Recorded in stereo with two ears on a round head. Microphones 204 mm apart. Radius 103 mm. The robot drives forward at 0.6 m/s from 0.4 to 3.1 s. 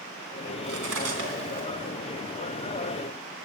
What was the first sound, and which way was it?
Cutlery clinking, 65° right (ahead or behind).